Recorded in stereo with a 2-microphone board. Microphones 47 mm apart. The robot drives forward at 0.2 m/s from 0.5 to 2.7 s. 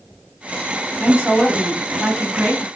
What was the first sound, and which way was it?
A woman speaking, 40° right (ahead or behind).